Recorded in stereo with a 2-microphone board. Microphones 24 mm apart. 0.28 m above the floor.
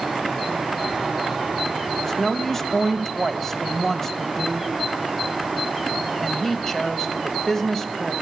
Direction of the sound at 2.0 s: 15° left (ahead or behind).